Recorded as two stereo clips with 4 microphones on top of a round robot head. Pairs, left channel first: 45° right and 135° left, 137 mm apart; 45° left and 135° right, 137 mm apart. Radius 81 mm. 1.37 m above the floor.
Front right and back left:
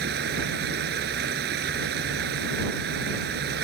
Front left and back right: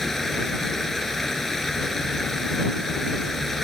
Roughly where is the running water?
Behind left.